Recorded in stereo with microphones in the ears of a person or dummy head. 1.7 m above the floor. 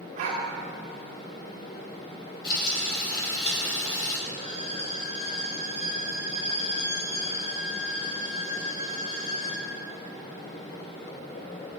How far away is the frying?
About 5 m.